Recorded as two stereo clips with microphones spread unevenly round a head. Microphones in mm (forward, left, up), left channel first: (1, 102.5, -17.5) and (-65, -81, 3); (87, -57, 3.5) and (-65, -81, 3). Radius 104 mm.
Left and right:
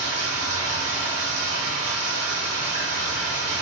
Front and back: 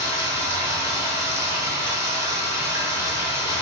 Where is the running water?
100° right, 1.0 m.